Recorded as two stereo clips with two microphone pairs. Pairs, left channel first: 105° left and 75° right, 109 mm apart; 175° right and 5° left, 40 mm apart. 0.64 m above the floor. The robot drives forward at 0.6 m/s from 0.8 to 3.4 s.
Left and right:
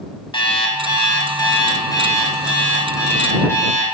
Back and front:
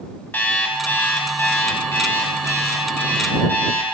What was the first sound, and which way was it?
An alarm clock, 145° left.